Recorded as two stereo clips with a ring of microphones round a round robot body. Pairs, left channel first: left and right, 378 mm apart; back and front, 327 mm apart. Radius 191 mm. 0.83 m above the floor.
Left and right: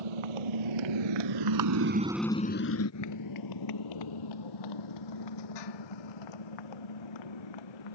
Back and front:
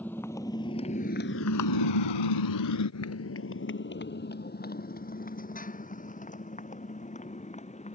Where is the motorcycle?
95° right; by 8.0 s 110° left.